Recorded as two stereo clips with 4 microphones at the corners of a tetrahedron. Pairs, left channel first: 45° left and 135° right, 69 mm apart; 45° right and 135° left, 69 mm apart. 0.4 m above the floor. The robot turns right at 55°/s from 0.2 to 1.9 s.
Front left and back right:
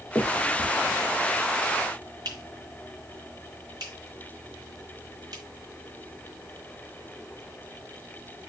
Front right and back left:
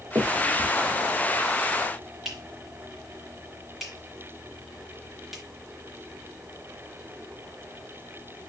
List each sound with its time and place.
0.1 s a finger snap: 125° left, 3.5 m; by 5.4 s 140° right, 3.5 m